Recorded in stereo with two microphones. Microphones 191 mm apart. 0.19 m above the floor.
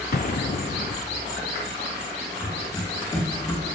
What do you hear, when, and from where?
0.1 s an explosion: 60° left (ahead or behind), 0.7 m
2.4 s running footsteps: 15° left (ahead or behind), 4 m; by 3.6 s 20° left (ahead or behind), 3 m